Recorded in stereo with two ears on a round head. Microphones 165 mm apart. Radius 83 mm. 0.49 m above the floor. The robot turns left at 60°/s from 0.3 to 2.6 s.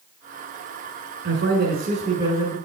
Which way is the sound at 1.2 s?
80° right.